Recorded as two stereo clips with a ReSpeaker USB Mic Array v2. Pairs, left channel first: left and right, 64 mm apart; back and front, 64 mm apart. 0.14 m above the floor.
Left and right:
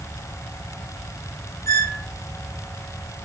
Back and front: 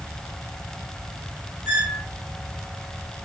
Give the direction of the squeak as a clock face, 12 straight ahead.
10 o'clock.